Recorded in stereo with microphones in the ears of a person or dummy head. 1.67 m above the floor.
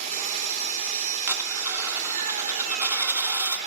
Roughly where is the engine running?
Right.